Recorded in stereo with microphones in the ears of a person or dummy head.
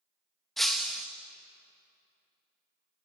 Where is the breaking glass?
Centre (ahead or behind), 1.4 m.